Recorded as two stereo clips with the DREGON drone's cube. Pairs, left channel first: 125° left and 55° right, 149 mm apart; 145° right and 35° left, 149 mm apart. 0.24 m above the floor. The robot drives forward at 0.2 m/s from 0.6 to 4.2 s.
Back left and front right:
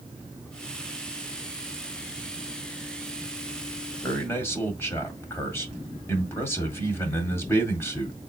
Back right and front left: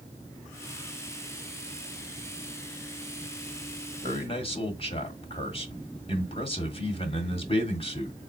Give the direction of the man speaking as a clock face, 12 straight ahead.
6 o'clock.